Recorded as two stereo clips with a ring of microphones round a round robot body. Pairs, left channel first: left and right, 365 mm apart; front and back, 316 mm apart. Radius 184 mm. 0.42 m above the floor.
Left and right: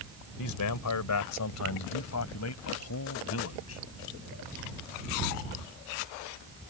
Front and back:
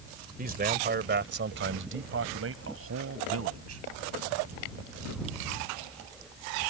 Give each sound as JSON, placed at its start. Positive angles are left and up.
{"t": 0.4, "sound": "a man speaking", "azimuth_deg": 120}